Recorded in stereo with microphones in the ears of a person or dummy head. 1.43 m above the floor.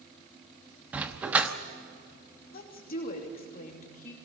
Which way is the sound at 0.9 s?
10° right (ahead or behind).